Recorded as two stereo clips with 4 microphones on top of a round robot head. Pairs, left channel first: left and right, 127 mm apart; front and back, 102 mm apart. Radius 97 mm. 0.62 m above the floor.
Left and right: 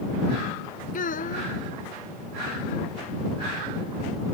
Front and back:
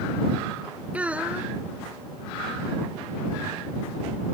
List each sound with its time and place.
0.9 s a child speaking: 100° left